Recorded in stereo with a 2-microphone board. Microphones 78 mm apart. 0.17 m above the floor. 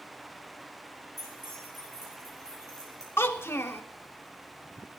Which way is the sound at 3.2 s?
30° left (ahead or behind).